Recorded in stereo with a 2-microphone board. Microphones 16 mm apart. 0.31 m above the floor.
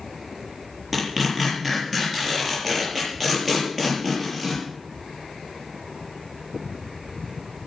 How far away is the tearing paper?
About 7.5 m.